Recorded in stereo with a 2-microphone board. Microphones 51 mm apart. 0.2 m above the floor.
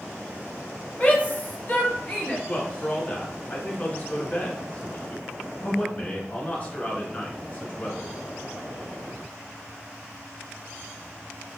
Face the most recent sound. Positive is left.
turn(degrees=30)  # may be behind; listen again after turning